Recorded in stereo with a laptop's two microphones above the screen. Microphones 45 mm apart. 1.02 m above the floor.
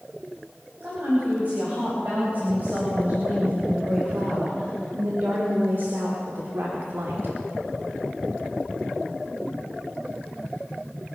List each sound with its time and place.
0.8 s a woman speaking: 40° right (ahead or behind), 5.5 m; by 7.4 s 65° right (ahead or behind), 2 m